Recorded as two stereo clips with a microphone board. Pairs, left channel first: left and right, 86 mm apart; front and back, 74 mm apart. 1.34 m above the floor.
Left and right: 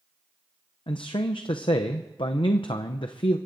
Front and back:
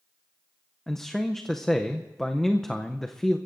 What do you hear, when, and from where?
0.9 s a man speaking: 85° left, 0.5 m